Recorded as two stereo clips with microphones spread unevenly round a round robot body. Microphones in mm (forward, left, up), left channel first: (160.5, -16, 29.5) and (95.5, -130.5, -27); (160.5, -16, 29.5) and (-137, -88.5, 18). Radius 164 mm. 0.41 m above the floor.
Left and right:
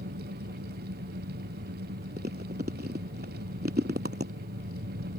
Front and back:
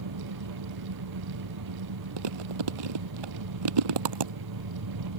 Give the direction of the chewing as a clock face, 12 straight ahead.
6 o'clock.